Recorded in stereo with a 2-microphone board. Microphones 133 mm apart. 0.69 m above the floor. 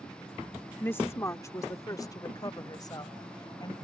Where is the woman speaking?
15° left (ahead or behind); by 3.7 s 35° left (ahead or behind).